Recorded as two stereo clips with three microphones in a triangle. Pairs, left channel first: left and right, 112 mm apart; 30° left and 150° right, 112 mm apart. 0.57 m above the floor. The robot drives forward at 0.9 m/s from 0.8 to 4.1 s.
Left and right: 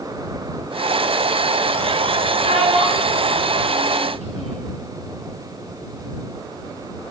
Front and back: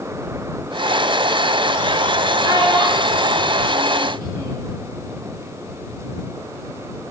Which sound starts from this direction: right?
A child speaking, at 2.4 s.